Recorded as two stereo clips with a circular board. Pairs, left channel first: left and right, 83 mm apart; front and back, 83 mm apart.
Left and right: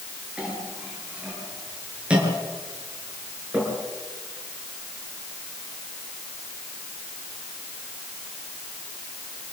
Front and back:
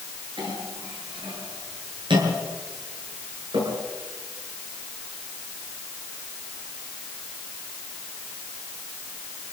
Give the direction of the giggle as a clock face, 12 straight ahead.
I don't hear a giggle.